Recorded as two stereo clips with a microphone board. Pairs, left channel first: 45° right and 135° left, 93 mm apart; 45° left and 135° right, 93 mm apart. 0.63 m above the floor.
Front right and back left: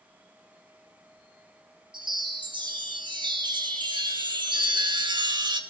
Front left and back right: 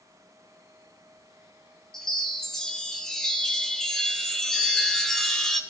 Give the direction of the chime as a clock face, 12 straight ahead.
8 o'clock.